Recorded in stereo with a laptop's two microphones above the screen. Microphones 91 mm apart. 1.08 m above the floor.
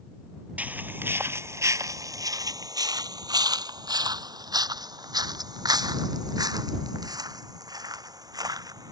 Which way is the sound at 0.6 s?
15° right (ahead or behind).